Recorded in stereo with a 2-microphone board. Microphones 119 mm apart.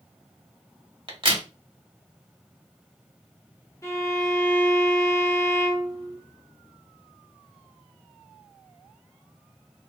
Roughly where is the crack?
Right.